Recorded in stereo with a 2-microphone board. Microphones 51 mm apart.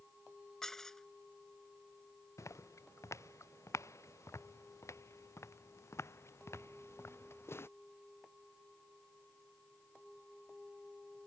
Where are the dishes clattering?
10° left (ahead or behind).